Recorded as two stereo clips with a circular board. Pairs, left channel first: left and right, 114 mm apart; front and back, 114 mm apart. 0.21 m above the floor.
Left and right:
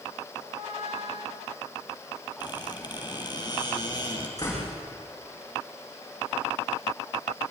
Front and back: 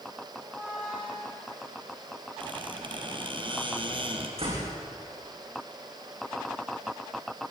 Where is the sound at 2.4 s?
140° left, 3.5 m.